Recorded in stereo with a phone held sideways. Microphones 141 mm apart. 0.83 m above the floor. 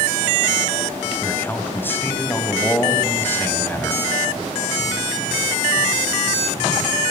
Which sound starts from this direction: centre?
A man speaking, at 1.2 s.